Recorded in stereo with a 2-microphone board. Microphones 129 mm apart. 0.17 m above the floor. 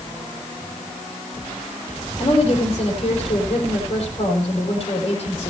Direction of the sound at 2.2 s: 40° left (ahead or behind).